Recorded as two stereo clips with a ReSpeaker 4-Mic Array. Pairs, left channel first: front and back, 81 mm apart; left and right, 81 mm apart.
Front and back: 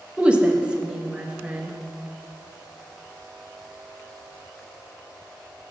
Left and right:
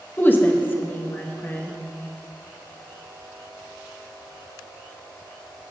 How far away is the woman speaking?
About 0.7 m.